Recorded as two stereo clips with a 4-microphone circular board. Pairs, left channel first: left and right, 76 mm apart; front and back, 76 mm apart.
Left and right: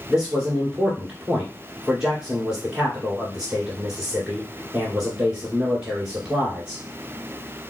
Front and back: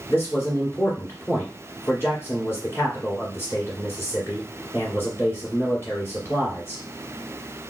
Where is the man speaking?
15° right, 2.0 m.